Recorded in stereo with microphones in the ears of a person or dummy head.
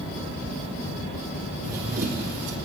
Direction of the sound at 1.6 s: 10° right (ahead or behind).